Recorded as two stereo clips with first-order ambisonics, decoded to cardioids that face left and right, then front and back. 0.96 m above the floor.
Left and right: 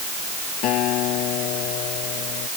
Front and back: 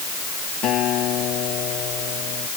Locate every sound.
0.6 s a guitar: 50° left